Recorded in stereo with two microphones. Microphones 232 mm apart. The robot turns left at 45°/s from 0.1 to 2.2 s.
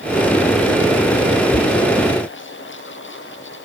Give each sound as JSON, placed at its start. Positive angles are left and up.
{"t": 1.5, "sound": "knocking", "side_deg": -50}